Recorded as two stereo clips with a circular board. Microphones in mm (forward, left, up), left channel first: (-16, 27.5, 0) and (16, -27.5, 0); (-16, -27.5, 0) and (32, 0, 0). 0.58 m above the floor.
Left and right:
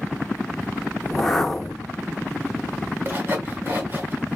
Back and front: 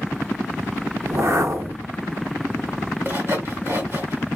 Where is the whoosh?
40° left, 0.7 m.